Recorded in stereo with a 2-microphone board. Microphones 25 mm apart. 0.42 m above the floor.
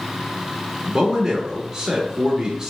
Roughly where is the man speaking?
Centre.